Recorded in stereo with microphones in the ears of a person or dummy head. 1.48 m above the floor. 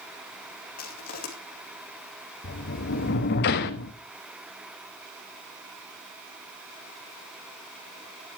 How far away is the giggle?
I don't hear a giggle.